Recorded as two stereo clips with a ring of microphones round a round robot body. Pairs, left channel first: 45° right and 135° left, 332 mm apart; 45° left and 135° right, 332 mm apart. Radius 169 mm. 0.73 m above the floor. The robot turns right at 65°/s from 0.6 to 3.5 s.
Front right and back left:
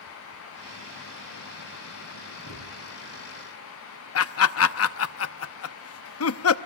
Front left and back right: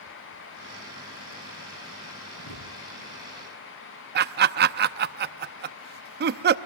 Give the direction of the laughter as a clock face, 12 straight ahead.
3 o'clock.